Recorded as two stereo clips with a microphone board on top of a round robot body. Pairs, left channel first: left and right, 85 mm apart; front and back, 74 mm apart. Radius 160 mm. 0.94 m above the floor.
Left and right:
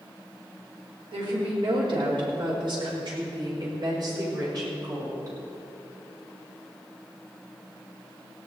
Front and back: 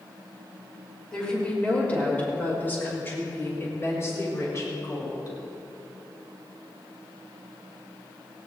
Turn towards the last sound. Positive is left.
turn(degrees=-45)